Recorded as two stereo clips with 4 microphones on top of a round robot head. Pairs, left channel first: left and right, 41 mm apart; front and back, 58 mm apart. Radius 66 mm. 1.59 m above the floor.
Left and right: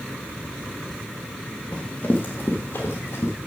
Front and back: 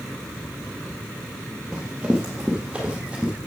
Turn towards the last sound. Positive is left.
turn(degrees=110)